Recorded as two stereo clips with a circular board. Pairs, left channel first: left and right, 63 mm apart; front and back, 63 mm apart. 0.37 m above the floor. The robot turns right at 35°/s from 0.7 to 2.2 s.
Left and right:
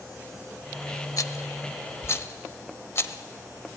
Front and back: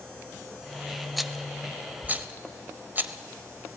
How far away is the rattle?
About 0.8 m.